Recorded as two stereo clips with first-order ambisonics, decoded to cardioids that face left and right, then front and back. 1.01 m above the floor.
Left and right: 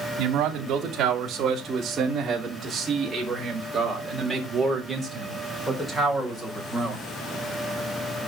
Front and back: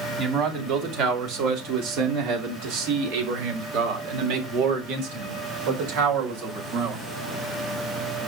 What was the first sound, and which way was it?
A man speaking, 135° right.